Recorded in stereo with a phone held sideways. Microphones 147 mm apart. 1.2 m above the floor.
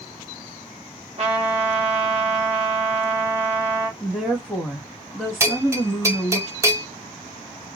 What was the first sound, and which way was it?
A trumpet, 50° right (ahead or behind).